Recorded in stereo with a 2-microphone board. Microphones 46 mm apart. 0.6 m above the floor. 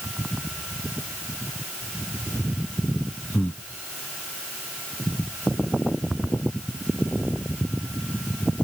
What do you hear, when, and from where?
3.3 s breathing: 40° left (ahead or behind)